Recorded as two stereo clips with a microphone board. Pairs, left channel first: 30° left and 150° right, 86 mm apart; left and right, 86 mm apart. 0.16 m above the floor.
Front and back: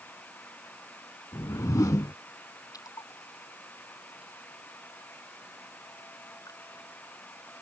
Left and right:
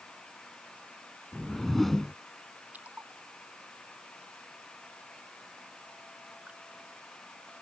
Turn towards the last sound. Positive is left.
turn(degrees=-15)